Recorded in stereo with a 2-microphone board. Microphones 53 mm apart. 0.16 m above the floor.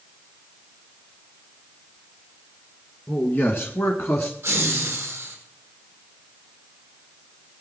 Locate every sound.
3.1 s a man speaking: 35° left (ahead or behind), 2 m; by 4.3 s 40° left (ahead or behind), 1.9 m
4.4 s laughter: 45° right (ahead or behind), 8.5 m